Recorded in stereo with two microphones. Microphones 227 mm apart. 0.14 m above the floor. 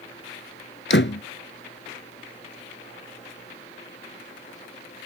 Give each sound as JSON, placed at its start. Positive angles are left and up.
{"t": 0.9, "sound": "a door slam", "side_deg": 55}